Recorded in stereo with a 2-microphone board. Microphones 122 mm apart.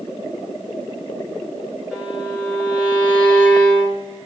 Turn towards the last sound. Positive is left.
turn(degrees=-5)  # may be behind; listen again after turning